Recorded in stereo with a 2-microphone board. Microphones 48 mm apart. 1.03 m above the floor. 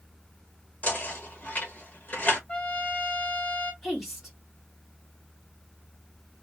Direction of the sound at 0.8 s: 35° left (ahead or behind).